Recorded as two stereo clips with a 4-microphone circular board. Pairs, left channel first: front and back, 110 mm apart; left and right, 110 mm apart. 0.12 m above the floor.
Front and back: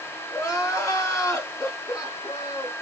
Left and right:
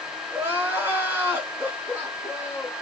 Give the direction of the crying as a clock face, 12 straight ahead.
1 o'clock.